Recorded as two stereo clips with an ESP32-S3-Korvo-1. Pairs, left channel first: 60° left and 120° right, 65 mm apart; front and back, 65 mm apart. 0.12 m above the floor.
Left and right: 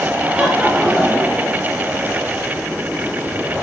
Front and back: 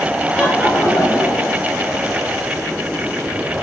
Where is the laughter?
55° right, 1.1 m; by 1.7 s 20° right, 2 m.